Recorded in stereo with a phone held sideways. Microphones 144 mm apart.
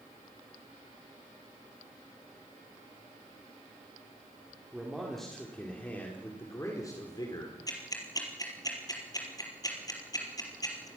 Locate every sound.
4.7 s a man speaking: 5° right (ahead or behind), 4 m; by 7.6 s 30° left (ahead or behind), 4 m
7.7 s ticking: 25° left (ahead or behind), 4 m